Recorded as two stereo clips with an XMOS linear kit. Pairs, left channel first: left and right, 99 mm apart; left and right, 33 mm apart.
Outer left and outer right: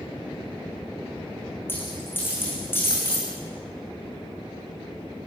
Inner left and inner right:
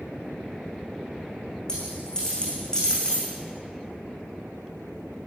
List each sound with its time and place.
1.7 s a dropped coin: 20° left (ahead or behind), 7 m